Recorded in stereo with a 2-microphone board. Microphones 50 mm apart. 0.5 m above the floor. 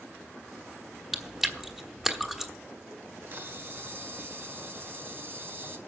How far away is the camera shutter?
About 1.5 m.